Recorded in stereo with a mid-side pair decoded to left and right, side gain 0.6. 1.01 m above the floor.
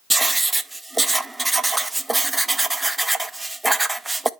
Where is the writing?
5° right, 0.6 m.